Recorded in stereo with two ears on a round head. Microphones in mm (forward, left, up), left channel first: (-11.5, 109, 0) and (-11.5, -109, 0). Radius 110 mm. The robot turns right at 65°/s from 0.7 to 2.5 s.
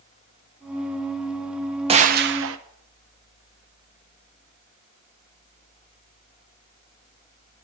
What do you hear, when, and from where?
1.9 s a gunshot: 155° right, 0.7 m; by 2.6 s 115° right, 0.7 m